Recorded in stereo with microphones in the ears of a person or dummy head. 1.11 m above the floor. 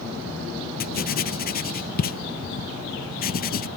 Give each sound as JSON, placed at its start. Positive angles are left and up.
{"t": 0.8, "sound": "writing", "side_deg": 50}